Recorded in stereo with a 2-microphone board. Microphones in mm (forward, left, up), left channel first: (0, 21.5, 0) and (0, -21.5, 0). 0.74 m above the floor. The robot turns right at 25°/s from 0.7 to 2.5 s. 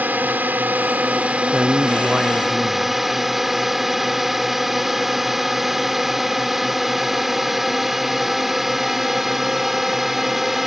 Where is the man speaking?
20° right (ahead or behind).